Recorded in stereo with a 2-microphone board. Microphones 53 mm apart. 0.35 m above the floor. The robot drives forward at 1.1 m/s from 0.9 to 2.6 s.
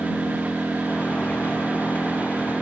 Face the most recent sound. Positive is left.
turn(degrees=10)  # may be behind; listen again after turning